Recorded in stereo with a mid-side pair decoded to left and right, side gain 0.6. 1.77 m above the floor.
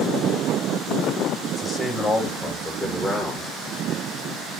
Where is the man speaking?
20° left, 7 m; by 3.5 s 10° left, 7.5 m.